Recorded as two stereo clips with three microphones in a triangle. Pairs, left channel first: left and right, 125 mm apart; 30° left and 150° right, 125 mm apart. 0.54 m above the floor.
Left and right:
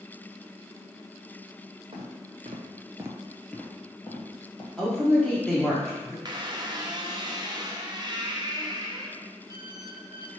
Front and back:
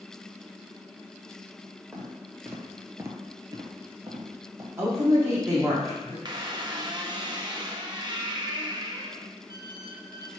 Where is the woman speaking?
170° left, 0.8 m.